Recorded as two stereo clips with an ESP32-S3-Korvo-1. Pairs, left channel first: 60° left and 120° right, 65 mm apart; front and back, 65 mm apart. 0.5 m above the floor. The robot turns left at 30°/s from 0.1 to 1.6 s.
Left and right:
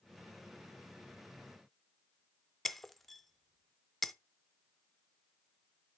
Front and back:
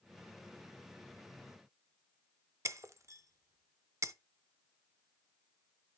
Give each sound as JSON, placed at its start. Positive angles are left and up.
{"t": 2.6, "sound": "breaking glass", "azimuth_deg": 150, "distance_m": 0.6}